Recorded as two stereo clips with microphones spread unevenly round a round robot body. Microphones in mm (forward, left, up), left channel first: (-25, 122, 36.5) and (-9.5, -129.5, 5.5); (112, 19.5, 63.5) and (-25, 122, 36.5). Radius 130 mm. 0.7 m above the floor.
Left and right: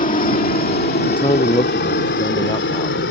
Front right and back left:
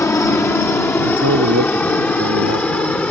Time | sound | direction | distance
0.0 | a helicopter | 40° left | ?
1.1 | a man speaking | 165° left | ?